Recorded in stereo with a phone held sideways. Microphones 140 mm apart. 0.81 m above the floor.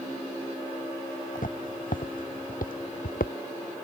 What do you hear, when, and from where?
1.4 s footsteps: 75° left (ahead or behind); by 3.3 s 85° left